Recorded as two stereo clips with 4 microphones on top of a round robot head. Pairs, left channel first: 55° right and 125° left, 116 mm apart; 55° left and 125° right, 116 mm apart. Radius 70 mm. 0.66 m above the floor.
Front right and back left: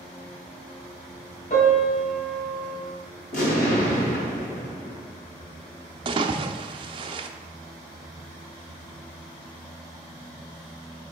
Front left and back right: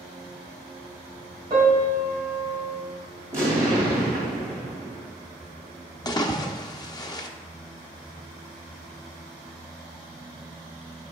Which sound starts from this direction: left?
A splash, at 6.0 s.